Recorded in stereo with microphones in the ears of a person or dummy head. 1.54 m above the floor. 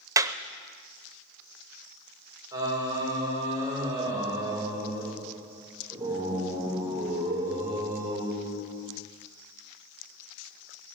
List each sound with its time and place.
0.2 s a clap: 25° right (ahead or behind), 0.6 m
2.5 s singing: 15° right (ahead or behind), 6 m